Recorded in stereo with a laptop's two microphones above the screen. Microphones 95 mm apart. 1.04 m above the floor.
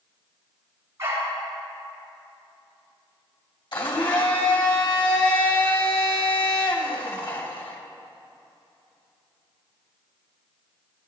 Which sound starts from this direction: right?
A dog barking, at 1.0 s.